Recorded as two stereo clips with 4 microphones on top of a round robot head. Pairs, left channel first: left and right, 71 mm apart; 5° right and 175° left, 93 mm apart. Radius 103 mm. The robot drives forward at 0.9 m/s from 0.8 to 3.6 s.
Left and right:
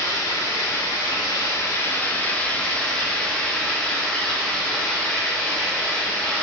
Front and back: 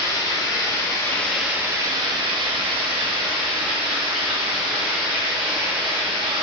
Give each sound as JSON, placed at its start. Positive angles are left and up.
{"t": 0.0, "sound": "running water", "azimuth_deg": 40, "distance_m": 0.9}